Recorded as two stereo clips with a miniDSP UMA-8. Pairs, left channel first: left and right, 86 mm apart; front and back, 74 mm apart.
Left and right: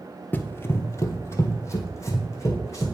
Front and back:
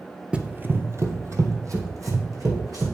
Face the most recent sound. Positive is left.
turn(degrees=145)